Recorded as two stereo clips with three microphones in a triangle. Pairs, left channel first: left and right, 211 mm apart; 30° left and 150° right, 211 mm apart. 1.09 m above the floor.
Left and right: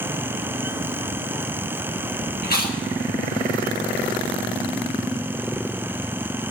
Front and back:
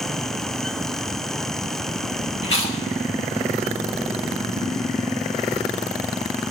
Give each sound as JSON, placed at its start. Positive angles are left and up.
{"t": 2.4, "sound": "chewing", "azimuth_deg": 50, "distance_m": 1.3}